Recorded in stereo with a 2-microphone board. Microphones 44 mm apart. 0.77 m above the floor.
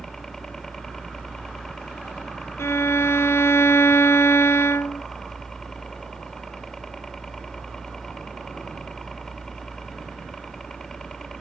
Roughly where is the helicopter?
Centre.